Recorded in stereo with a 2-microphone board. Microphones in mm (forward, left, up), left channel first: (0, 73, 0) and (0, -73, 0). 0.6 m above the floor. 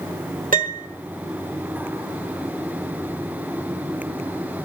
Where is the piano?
65° right (ahead or behind), 1.7 m.